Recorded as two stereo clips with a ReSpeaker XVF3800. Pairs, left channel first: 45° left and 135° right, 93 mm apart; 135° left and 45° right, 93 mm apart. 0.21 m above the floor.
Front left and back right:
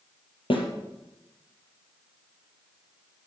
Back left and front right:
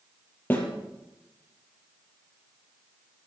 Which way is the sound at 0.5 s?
65° left.